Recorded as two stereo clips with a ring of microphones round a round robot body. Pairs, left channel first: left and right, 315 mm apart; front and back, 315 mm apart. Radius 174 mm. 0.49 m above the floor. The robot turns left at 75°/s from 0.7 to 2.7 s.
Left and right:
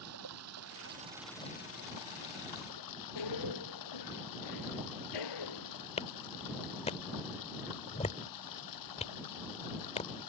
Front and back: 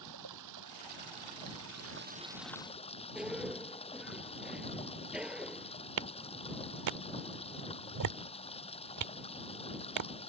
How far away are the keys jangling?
I don't hear keys jangling.